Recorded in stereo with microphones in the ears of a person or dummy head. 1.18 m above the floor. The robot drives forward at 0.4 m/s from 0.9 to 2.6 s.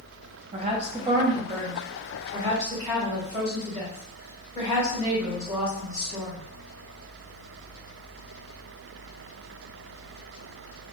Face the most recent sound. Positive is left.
turn(degrees=-15)  # may be behind; listen again after turning